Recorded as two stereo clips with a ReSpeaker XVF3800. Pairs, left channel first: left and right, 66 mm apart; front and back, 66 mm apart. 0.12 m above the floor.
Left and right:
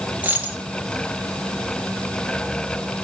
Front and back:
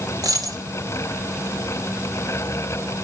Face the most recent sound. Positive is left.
turn(degrees=-160)